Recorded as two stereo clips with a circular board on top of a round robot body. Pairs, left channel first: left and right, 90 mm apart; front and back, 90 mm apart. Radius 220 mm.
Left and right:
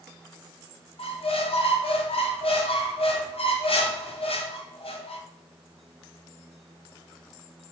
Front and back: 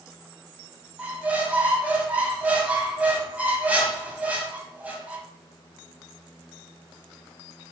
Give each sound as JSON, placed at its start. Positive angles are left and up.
{"t": 1.0, "sound": "a squeak", "azimuth_deg": 105, "distance_m": 1.1}